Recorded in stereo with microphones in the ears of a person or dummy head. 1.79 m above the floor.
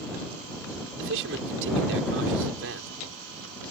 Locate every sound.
1.0 s a man speaking: 70° right (ahead or behind)